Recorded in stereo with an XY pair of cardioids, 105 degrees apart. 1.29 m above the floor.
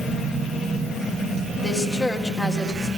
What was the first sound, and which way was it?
A woman speaking, 25° left.